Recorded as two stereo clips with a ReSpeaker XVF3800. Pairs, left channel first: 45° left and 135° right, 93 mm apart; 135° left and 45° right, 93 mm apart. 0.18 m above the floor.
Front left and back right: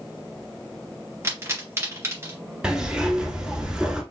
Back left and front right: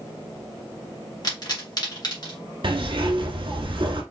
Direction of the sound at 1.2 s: 170° left.